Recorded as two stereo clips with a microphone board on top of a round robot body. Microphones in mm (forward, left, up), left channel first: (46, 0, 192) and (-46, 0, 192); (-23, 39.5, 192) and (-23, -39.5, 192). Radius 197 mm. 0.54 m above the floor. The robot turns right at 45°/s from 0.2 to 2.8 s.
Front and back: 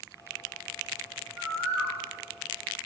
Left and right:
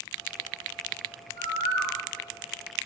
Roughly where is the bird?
Left.